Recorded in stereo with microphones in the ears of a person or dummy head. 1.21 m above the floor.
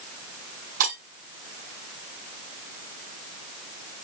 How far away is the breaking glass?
About 6 m.